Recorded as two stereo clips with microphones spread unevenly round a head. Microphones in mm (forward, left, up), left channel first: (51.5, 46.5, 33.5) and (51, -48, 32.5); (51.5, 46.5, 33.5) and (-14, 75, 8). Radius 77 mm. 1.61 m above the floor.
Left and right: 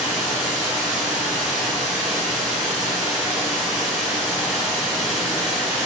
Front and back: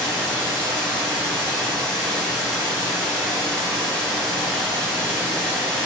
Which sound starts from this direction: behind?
Running water, at 0.0 s.